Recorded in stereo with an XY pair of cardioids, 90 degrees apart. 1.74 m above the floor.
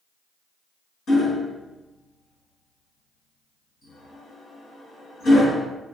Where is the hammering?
70° left, 1.8 m.